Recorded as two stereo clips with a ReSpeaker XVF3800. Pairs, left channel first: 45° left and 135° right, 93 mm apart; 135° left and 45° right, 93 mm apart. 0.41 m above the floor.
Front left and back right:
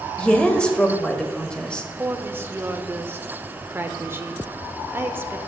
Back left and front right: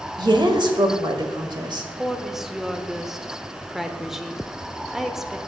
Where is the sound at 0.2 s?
30° right, 1.4 m.